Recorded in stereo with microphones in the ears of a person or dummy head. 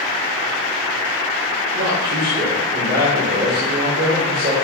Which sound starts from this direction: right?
A man speaking, at 1.8 s.